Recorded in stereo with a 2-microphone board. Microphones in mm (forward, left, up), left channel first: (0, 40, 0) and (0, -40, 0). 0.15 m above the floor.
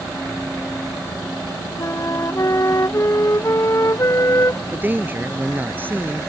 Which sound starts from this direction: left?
A flute, at 1.8 s.